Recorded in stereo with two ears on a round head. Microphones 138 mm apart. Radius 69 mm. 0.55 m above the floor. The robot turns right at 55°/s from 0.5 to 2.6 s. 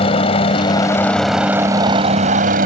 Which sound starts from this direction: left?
A helicopter, at 0.0 s.